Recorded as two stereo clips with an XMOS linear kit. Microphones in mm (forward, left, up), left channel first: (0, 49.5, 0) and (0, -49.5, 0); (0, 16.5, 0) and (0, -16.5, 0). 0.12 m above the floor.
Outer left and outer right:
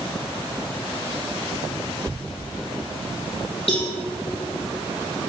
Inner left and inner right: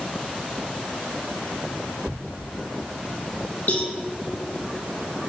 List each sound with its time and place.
2.1 s a thud: 50° right (ahead or behind), 1.0 m
3.7 s a cowbell: 70° left (ahead or behind), 3.5 m